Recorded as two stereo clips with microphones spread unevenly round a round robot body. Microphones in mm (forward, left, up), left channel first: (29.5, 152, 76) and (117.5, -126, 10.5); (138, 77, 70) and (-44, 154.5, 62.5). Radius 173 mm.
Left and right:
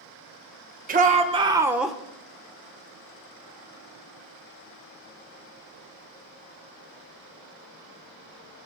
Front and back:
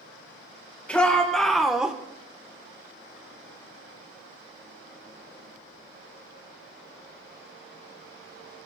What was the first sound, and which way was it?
A shout, 105° right.